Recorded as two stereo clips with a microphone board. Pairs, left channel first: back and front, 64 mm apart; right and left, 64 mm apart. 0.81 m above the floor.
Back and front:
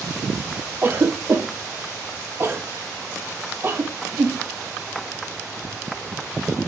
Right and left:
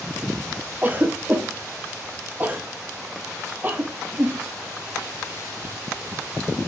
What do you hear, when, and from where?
0.8 s a cough: 40° left, 0.5 m